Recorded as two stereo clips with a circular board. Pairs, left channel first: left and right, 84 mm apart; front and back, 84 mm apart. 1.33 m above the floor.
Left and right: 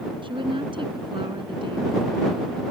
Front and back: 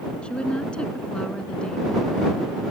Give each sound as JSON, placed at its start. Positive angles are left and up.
{"t": 0.2, "sound": "a woman speaking", "azimuth_deg": -80}